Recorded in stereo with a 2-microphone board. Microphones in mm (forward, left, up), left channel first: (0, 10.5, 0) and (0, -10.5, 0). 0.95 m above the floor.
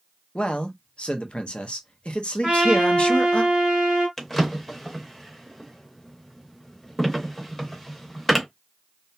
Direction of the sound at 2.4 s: 55° right (ahead or behind).